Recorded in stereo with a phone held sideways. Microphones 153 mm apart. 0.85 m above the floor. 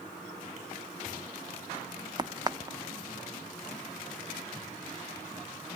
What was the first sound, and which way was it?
A crack, 25° right (ahead or behind).